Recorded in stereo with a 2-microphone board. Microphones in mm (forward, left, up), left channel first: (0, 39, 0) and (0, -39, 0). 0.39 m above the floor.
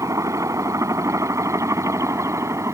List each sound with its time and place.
0.0 s a helicopter: 45° right (ahead or behind); by 2.8 s 40° right (ahead or behind)